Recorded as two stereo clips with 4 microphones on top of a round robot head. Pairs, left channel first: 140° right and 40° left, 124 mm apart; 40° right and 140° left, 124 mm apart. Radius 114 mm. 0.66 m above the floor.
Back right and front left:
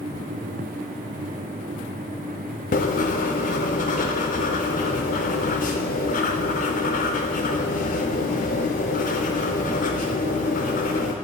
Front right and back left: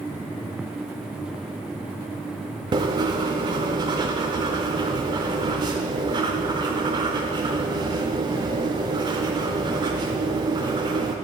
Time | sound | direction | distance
2.7 | writing | 160° right | 0.5 m